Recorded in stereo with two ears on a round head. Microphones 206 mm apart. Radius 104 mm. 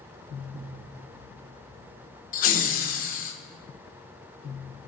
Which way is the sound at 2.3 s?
40° left (ahead or behind).